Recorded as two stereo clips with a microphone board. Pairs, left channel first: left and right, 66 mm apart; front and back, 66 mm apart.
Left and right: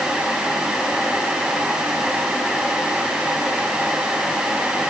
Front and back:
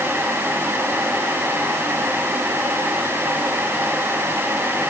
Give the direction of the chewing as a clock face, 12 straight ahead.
I don't hear chewing.